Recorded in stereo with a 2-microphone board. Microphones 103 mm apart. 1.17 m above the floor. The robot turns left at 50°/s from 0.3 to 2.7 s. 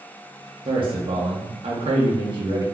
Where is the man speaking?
45° right, 0.6 m; by 2.6 s 145° right, 0.6 m.